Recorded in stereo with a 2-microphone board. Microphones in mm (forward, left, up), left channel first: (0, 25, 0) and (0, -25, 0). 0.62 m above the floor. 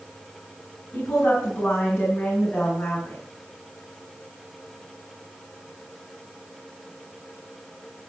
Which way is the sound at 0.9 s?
20° left (ahead or behind).